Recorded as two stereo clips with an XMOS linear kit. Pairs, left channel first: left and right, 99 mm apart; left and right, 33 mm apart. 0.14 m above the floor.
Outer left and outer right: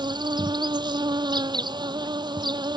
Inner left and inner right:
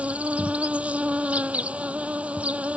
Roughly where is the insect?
Right.